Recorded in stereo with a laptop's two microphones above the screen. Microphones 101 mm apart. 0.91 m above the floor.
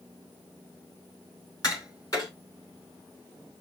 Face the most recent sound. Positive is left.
turn(degrees=40)  # may be behind; listen again after turning